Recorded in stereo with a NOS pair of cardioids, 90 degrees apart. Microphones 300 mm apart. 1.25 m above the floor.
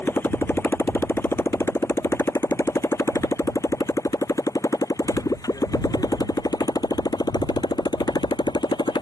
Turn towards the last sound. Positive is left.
turn(degrees=15)